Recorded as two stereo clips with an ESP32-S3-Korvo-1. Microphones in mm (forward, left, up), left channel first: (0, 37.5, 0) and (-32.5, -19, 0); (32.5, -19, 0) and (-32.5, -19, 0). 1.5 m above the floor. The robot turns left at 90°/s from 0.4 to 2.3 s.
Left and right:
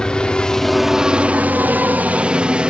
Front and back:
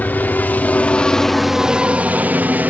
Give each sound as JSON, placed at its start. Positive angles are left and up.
{"t": 0.0, "sound": "a helicopter", "azimuth_deg": 0}